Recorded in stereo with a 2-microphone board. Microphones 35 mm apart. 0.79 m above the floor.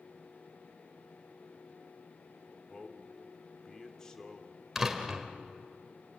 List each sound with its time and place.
2.7 s a man speaking: 20° left (ahead or behind), 2.0 m
4.8 s a door slam: 10° right (ahead or behind), 2 m